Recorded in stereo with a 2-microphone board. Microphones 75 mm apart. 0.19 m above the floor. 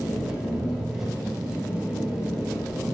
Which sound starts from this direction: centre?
An engine running, at 0.0 s.